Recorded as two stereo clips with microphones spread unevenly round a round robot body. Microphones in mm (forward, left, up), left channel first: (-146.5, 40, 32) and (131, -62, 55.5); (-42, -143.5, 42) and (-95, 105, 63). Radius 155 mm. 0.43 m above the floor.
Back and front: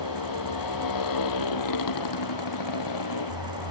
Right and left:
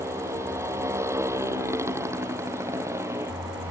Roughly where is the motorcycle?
Behind.